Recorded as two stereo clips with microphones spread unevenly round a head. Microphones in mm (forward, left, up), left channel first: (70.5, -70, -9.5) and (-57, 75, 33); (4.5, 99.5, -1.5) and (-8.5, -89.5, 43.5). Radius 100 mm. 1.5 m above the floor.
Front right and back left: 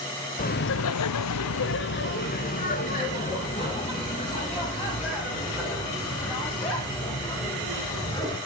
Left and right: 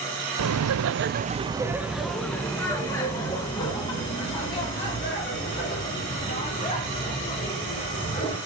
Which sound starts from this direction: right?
Laughter, at 0.4 s.